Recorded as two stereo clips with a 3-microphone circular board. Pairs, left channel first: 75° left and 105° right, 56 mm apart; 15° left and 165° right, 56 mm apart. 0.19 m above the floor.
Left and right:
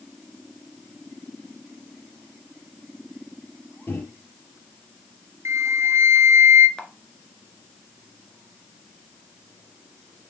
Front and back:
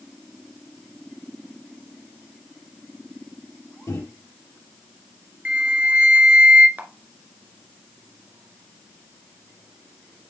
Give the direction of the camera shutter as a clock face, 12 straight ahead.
7 o'clock.